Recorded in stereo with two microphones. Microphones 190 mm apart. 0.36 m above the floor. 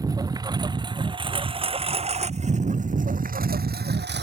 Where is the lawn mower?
20° right (ahead or behind); by 4.2 s 65° right (ahead or behind).